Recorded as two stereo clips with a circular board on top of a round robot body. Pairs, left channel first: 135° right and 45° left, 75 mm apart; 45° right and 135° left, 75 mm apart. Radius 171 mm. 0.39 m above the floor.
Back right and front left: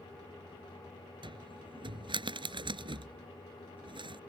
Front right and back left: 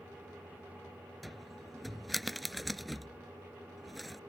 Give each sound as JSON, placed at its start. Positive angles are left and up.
{"t": 1.2, "sound": "a cupboard door", "azimuth_deg": 45}